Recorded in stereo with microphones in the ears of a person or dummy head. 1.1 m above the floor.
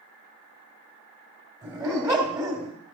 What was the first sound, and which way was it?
A dog barking, 20° right (ahead or behind).